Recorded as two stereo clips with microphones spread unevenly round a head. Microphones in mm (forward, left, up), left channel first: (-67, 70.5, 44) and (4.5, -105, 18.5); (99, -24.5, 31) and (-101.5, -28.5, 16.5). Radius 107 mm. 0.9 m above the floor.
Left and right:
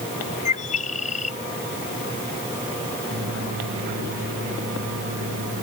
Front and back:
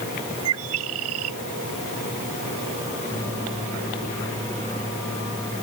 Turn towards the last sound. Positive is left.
turn(degrees=-75)